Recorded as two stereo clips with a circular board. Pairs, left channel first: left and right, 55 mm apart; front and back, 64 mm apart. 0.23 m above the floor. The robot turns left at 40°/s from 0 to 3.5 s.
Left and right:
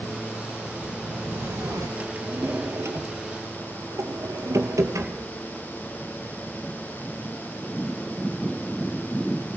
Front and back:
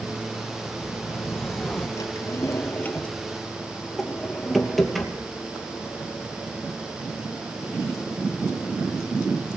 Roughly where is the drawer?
Ahead right.